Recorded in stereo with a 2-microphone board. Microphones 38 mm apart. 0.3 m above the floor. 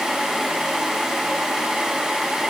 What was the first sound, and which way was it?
Only background noise.